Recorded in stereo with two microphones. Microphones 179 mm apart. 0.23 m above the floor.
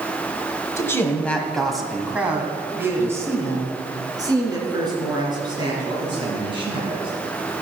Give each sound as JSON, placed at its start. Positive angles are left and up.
{"t": 0.8, "sound": "a man speaking", "side_deg": 15, "distance_m": 1.4}